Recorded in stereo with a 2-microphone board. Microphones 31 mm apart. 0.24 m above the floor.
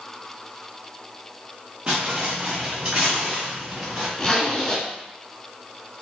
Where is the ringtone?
No ringtone in this recording.